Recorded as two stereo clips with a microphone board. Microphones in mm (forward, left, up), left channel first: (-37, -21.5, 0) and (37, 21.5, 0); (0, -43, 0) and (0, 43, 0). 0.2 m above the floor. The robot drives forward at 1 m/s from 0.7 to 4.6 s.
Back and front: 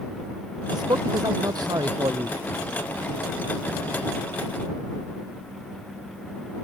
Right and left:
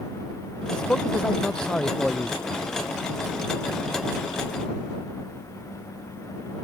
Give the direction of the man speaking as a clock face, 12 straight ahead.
12 o'clock.